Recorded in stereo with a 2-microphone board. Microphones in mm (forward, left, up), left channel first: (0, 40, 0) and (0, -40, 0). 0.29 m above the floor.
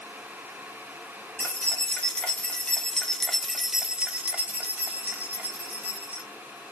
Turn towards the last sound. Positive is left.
turn(degrees=-20)  # may be behind; listen again after turning